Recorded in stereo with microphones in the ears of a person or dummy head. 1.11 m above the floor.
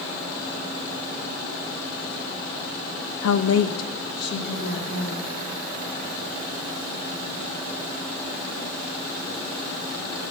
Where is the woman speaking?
65° left (ahead or behind), 0.5 m; by 5.3 s 40° left (ahead or behind), 2.5 m.